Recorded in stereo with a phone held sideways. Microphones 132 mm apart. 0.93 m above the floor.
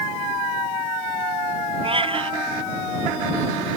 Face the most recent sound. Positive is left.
turn(degrees=-45)  # may be behind; listen again after turning